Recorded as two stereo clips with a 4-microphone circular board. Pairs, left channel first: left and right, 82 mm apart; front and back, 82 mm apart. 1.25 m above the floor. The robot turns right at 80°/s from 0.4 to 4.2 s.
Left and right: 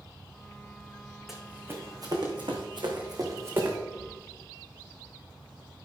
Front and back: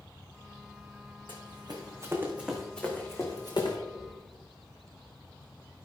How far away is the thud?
About 5 m.